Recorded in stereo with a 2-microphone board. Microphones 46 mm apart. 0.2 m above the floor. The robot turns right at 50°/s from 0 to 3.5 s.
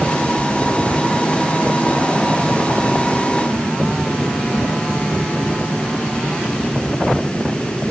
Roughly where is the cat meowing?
No cat meowing in this recording.